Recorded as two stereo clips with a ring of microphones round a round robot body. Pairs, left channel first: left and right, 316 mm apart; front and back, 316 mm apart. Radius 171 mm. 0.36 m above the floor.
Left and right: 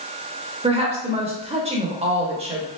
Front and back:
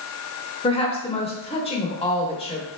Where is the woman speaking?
45° right, 0.9 m.